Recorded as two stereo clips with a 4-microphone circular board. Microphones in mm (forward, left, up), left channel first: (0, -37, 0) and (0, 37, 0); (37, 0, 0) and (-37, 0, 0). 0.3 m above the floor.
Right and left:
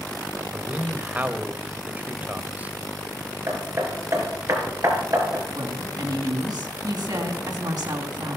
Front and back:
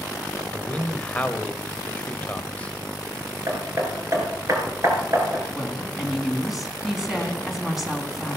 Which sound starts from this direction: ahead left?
A man speaking, at 0.5 s.